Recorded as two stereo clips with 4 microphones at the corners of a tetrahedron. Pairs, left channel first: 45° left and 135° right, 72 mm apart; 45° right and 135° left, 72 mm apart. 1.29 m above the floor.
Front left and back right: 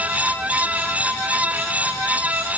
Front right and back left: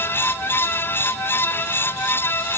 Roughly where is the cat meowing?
No cat meowing in this recording.